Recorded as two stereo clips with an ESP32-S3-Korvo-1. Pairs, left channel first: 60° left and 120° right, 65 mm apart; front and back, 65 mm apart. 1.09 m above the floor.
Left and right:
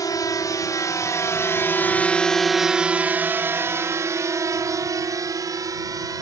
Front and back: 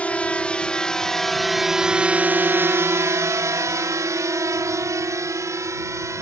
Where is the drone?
65° left; by 6.2 s 140° right.